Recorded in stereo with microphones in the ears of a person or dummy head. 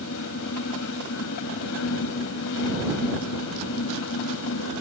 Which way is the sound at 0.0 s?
70° left (ahead or behind).